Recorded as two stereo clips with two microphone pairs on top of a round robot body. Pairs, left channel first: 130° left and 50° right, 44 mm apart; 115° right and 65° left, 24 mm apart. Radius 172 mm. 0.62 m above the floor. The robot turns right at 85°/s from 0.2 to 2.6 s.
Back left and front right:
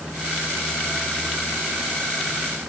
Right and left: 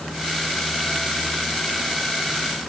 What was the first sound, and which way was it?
Only background noise.